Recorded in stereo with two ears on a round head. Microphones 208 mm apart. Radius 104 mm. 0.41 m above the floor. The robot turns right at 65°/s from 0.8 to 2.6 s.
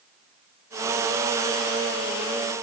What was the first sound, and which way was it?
Only background noise.